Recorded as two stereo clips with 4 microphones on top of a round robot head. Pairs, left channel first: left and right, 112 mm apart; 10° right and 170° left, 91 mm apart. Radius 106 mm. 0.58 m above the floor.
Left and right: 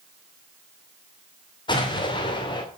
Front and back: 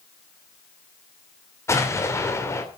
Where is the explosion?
45° left, 3 m.